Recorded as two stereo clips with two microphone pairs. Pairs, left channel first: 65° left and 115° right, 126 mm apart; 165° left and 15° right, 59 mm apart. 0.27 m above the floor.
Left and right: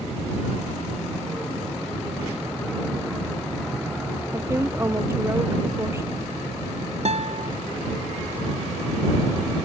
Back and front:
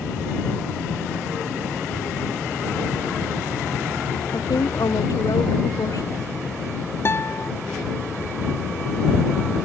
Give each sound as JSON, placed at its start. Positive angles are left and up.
{"t": 4.3, "sound": "a woman speaking", "azimuth_deg": 175}
{"t": 7.0, "sound": "a guitar", "azimuth_deg": -145}